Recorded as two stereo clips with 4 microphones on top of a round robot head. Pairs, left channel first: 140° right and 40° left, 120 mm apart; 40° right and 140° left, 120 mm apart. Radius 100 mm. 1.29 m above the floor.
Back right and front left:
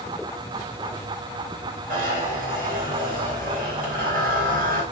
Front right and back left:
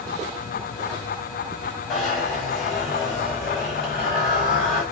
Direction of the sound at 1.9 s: 45° left.